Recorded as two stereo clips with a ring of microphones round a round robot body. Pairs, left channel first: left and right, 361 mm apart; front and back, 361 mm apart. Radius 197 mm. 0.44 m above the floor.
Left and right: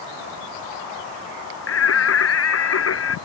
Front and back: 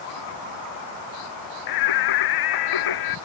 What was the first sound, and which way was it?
Singing, 35° left.